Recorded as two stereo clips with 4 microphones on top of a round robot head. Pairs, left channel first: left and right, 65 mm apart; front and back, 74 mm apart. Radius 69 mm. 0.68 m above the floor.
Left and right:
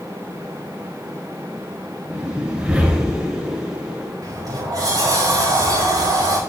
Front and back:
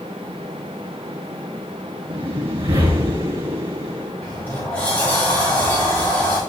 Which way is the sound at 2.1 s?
165° right.